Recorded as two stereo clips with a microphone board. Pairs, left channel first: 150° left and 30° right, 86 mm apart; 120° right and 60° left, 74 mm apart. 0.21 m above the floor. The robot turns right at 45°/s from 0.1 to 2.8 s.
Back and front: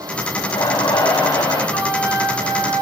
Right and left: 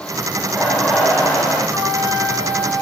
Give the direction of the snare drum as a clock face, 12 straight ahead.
No snare drum in this recording.